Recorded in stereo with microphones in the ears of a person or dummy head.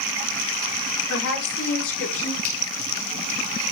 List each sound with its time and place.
1.1 s a woman speaking: 70° left (ahead or behind), 5 m; by 2.3 s 75° left (ahead or behind), 5.5 m
2.4 s a finger snap: 55° left (ahead or behind), 6.5 m